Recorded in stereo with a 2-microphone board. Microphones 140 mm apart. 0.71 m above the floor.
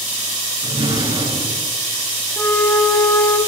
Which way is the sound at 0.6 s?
40° right (ahead or behind).